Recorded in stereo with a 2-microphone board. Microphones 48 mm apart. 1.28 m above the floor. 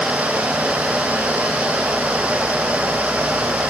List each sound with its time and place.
Only background noise.